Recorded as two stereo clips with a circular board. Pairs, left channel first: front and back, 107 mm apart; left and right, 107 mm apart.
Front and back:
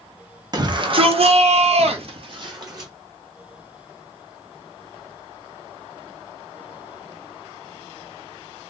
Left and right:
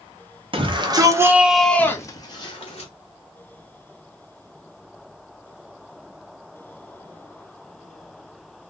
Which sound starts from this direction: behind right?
A shout, at 0.5 s.